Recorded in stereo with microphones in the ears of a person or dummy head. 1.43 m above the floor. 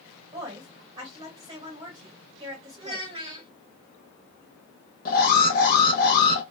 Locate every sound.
0.3 s a woman speaking: 30° right (ahead or behind), 1.2 m
2.8 s a child speaking: 25° right (ahead or behind), 1.3 m
5.0 s an alarm: 40° left (ahead or behind), 0.8 m